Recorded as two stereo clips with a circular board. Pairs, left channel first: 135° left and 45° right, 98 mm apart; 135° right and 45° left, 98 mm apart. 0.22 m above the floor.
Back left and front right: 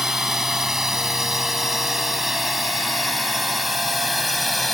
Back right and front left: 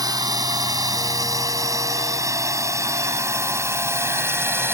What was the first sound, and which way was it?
A drone, 40° left.